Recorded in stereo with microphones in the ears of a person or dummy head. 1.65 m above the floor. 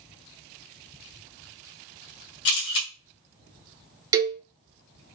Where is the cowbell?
20° right (ahead or behind), 0.6 m.